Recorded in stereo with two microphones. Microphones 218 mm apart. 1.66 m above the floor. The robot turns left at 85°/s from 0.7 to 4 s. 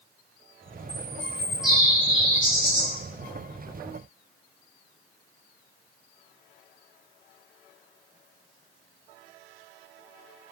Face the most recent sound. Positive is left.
turn(degrees=-20)